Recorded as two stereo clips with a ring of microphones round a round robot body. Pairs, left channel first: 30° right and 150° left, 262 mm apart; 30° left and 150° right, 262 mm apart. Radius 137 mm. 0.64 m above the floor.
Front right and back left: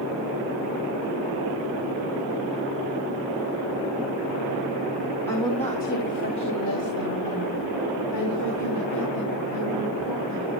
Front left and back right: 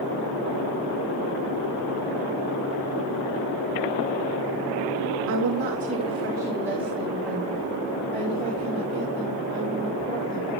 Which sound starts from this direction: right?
A woman speaking, at 5.3 s.